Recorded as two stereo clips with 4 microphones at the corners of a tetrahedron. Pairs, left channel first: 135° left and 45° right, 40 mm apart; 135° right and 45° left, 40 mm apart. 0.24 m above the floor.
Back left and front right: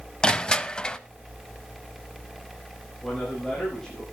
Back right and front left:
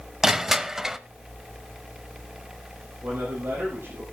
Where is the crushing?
110° left, 0.6 m.